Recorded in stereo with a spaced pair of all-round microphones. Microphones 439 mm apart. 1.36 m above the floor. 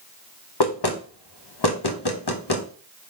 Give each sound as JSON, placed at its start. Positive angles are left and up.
{"t": 0.6, "sound": "knocking", "side_deg": 60, "distance_m": 0.7}